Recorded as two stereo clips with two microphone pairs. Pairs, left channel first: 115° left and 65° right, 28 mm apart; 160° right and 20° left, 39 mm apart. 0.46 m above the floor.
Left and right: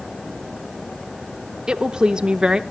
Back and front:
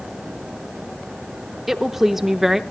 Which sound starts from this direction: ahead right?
A woman speaking, at 1.7 s.